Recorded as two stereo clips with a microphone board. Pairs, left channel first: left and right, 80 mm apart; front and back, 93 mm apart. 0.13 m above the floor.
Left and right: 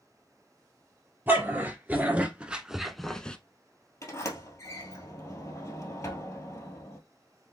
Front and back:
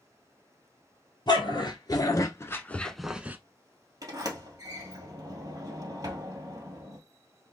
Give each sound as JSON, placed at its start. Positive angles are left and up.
{"t": 1.3, "sound": "a dog barking", "azimuth_deg": -30, "distance_m": 1.2}
{"t": 4.0, "sound": "a sliding door", "azimuth_deg": 135, "distance_m": 1.8}